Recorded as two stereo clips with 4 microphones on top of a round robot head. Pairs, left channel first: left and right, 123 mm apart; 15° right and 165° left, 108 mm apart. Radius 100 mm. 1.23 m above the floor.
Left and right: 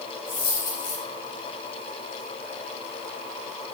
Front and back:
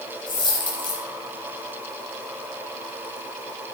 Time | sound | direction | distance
0.3 | a dropped coin | 30° left | 7 m